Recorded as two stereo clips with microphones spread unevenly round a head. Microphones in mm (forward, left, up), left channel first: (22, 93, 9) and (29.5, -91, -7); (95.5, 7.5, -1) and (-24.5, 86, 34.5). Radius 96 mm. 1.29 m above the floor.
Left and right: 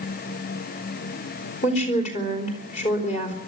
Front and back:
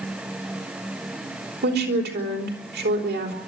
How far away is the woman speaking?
About 4 m.